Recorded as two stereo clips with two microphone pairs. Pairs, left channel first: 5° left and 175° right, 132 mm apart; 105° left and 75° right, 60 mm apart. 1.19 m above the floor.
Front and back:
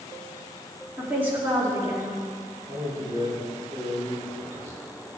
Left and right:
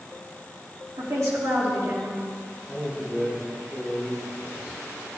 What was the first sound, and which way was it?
A woman speaking, 95° right.